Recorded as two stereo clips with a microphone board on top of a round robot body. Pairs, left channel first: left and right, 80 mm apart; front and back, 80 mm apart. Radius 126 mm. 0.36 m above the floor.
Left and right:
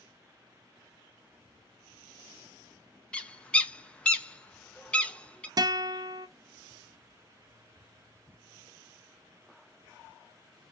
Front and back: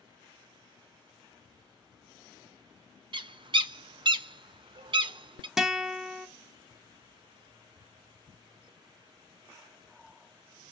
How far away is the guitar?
About 0.7 m.